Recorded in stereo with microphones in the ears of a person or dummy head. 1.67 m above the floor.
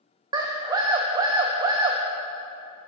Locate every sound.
0.3 s a scream: 25° right (ahead or behind), 0.7 m